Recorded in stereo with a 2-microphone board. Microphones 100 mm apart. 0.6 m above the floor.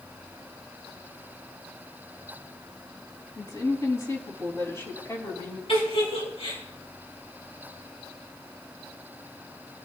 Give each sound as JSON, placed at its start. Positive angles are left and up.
{"t": 3.4, "sound": "a woman speaking", "side_deg": 35, "distance_m": 4.5}
{"t": 5.7, "sound": "a giggle", "side_deg": 60, "distance_m": 5.5}